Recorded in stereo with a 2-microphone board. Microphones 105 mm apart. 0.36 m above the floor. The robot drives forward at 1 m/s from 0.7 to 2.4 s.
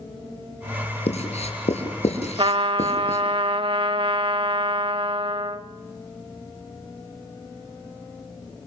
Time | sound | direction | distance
1.1 | writing | 75° left (ahead or behind) | 4.5 m
2.4 | a trumpet | 55° right (ahead or behind) | 0.8 m